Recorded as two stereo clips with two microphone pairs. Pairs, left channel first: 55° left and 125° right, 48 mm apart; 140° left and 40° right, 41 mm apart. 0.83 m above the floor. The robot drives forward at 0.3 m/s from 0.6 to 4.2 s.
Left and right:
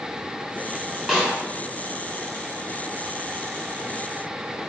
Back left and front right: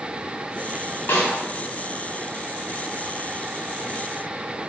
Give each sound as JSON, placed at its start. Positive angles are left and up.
{"t": 1.1, "sound": "a snare drum", "azimuth_deg": 165, "distance_m": 0.9}